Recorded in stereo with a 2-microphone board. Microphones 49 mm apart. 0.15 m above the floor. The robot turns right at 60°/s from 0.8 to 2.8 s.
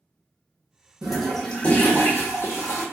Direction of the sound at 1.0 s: 15° right.